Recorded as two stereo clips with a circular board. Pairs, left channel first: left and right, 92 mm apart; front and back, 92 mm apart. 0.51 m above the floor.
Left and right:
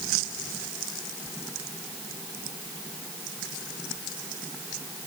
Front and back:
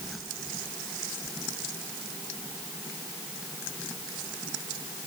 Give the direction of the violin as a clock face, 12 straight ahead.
I don't hear a violin.